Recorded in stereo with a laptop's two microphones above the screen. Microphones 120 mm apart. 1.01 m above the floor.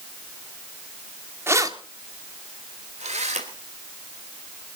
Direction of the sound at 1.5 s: 20° right (ahead or behind).